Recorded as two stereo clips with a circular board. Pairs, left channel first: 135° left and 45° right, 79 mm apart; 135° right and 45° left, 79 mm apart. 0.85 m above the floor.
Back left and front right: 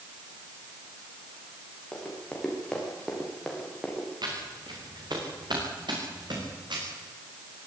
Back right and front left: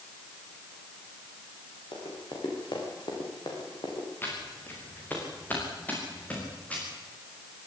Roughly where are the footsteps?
Right.